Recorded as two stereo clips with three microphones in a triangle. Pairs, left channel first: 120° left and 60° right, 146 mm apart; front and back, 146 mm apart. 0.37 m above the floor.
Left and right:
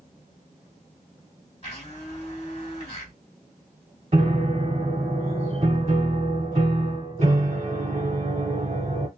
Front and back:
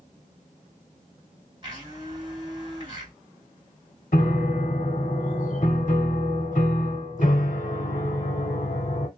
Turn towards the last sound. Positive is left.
turn(degrees=-20)